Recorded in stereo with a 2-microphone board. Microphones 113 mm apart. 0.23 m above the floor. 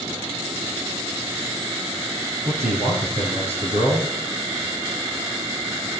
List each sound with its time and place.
2.5 s a man speaking: 65° right (ahead or behind), 2.5 m